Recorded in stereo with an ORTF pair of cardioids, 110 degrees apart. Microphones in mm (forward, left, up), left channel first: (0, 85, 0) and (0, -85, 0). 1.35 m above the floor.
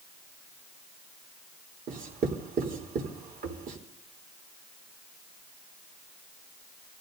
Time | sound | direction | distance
1.9 | writing | 55° right | 3.5 m